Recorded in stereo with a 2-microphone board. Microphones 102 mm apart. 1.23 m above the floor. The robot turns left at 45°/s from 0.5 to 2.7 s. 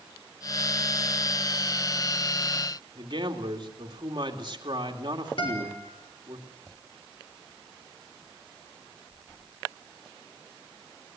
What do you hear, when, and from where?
3.0 s a man speaking: 50° right (ahead or behind), 2.5 m
5.4 s a guitar: 60° left (ahead or behind), 5 m